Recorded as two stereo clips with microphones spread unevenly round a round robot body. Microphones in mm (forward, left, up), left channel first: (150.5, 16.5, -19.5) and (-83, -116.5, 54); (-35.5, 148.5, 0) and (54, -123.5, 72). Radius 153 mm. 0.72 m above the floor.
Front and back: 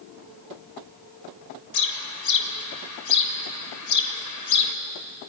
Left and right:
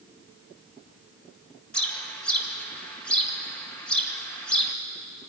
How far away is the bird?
About 1.8 m.